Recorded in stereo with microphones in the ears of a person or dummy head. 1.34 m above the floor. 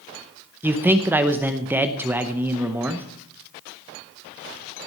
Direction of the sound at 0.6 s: 5° right (ahead or behind).